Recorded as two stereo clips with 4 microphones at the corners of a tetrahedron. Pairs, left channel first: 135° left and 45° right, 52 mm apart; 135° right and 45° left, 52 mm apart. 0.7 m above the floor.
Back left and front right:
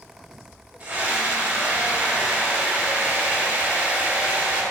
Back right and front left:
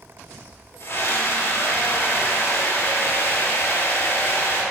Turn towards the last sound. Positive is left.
turn(degrees=-110)